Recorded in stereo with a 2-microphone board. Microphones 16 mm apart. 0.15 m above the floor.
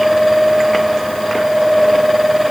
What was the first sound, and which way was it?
Only background noise.